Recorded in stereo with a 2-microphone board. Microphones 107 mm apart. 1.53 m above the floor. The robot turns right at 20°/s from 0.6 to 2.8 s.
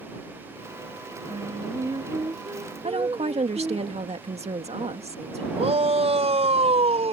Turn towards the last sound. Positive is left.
turn(degrees=-75)  # may be behind; listen again after turning